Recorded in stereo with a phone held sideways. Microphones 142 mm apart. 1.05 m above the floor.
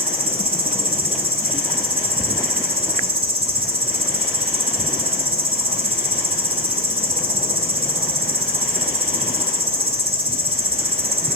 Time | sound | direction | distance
0.0 | an insect | 40° right (ahead or behind) | 0.9 m